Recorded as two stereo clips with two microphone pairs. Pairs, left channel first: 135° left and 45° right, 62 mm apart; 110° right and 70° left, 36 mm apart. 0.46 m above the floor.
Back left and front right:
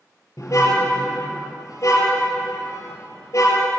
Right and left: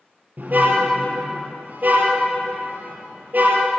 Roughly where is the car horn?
Left.